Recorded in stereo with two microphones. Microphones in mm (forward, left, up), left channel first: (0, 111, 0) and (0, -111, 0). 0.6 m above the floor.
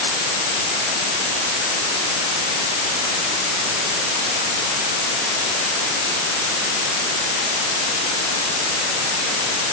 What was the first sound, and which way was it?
Only background noise.